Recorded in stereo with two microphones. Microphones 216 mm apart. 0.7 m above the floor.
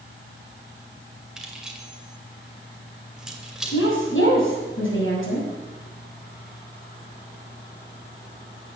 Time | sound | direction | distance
1.4 | keys jangling | 5° right (ahead or behind) | 2 m
3.7 | a woman speaking | 80° left | 6 m